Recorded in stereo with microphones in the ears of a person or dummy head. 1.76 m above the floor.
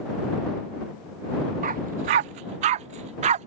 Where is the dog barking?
25° right (ahead or behind); by 3.5 s 35° right (ahead or behind).